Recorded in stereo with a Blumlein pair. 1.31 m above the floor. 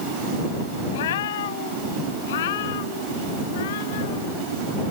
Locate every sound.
0.9 s a cat meowing: 60° left; by 4.4 s 55° left